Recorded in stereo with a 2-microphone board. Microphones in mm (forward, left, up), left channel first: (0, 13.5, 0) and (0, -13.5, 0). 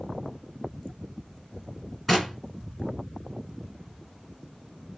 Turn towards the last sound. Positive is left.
turn(degrees=0)  # may be behind; listen again after turning